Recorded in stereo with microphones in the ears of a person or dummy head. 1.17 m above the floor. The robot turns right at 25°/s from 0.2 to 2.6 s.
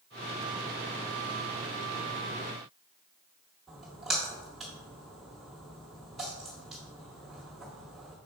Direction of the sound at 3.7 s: Centre (ahead or behind).